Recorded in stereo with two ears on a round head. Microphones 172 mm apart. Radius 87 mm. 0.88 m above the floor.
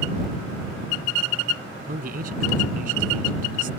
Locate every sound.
1.9 s a man speaking: 45° right (ahead or behind)